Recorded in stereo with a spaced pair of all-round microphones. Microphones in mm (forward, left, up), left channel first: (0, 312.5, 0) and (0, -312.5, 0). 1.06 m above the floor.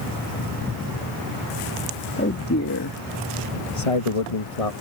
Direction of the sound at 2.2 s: 20° left (ahead or behind).